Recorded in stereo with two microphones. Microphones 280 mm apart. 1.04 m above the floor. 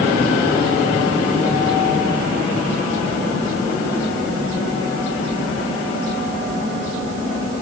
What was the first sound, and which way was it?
Only background noise.